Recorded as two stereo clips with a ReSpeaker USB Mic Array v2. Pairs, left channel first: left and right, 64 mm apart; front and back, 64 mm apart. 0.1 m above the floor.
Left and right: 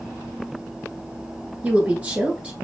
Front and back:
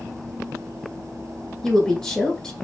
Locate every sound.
1.6 s a woman speaking: 70° right, 1.2 m